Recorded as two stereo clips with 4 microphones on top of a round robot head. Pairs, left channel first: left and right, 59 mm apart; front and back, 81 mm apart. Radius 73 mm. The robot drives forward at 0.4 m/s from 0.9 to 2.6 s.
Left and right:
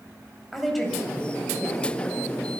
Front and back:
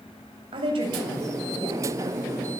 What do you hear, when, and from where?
0.5 s a woman speaking: 175° left, 8 m